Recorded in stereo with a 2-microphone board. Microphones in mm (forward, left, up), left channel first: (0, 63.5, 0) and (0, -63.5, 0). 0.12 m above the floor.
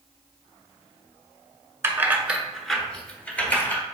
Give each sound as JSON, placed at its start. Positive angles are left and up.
{"t": 1.8, "sound": "keys jangling", "side_deg": -20, "distance_m": 0.8}